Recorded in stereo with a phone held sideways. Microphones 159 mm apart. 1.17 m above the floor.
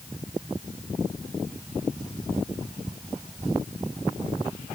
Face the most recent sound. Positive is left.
No sound to turn to.